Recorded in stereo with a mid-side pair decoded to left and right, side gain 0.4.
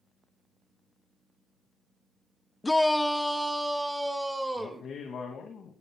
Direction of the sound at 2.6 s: 20° left.